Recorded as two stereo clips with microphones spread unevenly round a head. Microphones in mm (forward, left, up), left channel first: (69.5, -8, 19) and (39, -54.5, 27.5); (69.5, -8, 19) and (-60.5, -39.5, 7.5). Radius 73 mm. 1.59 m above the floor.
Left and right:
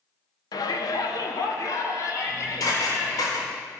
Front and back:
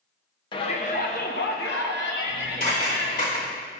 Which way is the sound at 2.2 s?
50° left.